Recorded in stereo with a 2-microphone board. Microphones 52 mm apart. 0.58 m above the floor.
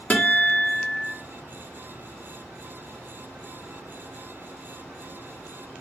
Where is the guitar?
35° left (ahead or behind), 1.2 m.